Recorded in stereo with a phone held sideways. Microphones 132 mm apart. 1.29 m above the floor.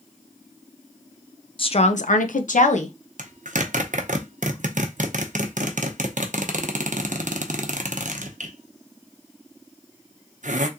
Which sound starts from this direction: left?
A woman speaking, at 1.6 s.